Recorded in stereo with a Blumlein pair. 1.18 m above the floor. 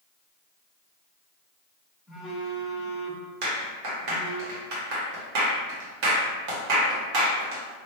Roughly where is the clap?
Ahead right.